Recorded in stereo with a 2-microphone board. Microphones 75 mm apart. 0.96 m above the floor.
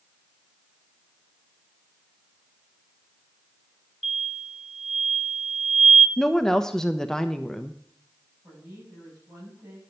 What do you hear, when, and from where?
4.0 s an explosion: centre (ahead or behind), 1.4 m
6.2 s a woman speaking: 10° left (ahead or behind), 0.6 m
8.4 s a woman speaking: 25° right (ahead or behind), 7.5 m